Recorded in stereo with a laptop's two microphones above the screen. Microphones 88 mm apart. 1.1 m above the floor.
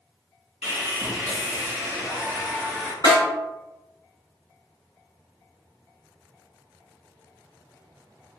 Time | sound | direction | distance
0.6 | sawing | 20° right (ahead or behind) | 1.2 m
3.0 | a snare drum | 45° left (ahead or behind) | 1.6 m